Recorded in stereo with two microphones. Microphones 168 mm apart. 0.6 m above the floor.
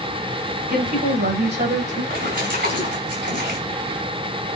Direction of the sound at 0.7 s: 70° right (ahead or behind).